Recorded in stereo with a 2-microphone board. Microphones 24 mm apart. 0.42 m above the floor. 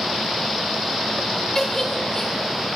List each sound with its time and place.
1.6 s a giggle: 30° left (ahead or behind), 0.7 m